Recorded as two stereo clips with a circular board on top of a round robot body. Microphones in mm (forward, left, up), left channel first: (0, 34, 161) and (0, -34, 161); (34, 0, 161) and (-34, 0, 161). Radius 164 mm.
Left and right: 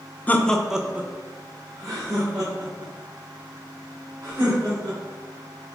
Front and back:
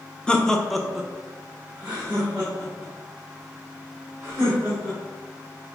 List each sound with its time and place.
0.3 s laughter: 60° left, 0.7 m; by 5.0 s 110° right, 3 m